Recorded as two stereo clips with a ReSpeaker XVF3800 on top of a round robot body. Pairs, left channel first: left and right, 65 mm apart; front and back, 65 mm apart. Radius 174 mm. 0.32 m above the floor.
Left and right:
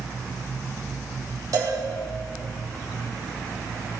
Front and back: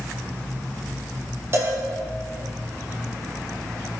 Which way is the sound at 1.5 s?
130° right.